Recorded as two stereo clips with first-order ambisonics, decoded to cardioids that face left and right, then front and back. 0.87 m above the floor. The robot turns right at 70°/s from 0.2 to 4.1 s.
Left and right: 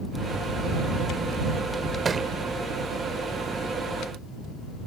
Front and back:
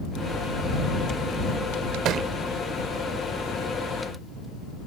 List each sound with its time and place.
2.0 s a thud: 155° right; by 2.3 s 140° right